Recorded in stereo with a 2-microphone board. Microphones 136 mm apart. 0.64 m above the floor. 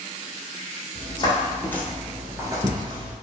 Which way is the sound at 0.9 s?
45° left (ahead or behind).